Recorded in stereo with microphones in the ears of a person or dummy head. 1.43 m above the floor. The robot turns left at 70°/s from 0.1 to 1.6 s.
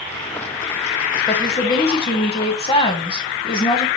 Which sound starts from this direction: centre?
A woman speaking, at 1.3 s.